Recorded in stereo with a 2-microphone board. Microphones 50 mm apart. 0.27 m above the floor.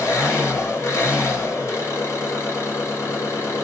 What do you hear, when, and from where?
0.0 s an engine running: 70° left (ahead or behind), 1.8 m